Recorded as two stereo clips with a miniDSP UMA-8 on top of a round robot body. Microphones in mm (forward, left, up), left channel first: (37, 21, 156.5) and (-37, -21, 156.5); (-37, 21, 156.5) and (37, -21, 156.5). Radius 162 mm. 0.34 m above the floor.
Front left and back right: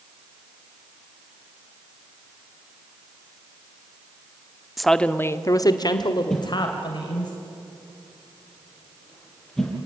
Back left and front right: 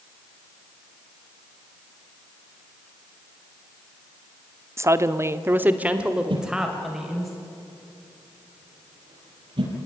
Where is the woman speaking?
60° right, 1.2 m; by 7.3 s 55° left, 3 m.